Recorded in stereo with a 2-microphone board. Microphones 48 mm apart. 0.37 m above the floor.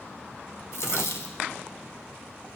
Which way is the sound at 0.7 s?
75° left (ahead or behind).